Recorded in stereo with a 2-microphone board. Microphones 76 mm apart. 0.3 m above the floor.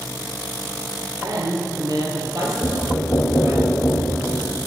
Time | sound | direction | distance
1.2 | a woman speaking | 40° right (ahead or behind) | 5 m
2.6 | knocking | 35° left (ahead or behind) | 1.1 m